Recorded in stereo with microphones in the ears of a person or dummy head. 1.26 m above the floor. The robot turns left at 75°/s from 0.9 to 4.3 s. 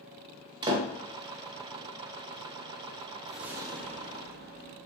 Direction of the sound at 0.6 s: 20° right (ahead or behind).